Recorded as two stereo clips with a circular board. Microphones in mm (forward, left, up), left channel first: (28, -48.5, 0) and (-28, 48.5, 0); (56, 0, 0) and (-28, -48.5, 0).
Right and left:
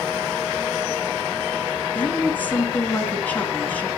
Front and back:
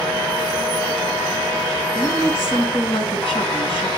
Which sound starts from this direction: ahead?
A woman speaking, at 1.9 s.